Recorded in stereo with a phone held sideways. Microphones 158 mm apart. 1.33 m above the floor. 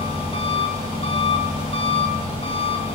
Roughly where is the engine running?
Left.